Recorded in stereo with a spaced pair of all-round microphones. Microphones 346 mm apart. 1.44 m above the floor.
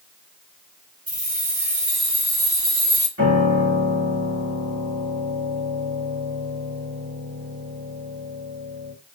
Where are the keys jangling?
65° right (ahead or behind), 2 m; by 3.1 s 60° right (ahead or behind), 1.2 m.